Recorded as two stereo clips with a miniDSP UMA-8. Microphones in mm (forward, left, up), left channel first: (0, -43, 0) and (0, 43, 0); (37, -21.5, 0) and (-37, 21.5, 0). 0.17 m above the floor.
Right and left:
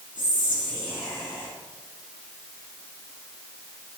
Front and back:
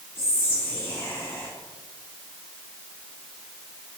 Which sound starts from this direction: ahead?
Whispering, at 0.1 s.